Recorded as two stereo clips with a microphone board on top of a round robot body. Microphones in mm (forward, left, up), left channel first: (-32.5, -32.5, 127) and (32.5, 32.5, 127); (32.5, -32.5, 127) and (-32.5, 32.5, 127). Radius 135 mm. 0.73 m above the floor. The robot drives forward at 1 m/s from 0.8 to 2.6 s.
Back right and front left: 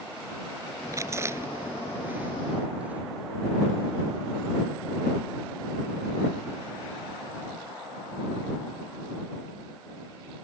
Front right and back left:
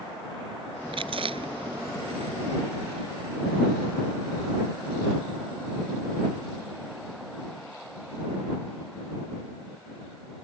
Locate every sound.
0.9 s chewing: 105° left; by 3.0 s 120° left